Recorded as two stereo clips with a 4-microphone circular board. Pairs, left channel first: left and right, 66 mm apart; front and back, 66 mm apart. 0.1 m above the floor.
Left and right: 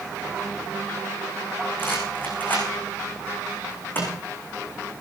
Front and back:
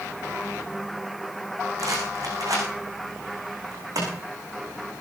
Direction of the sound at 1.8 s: 150° left.